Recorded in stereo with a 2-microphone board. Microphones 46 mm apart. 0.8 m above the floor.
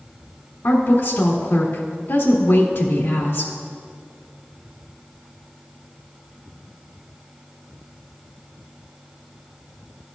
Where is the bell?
No bell in this recording.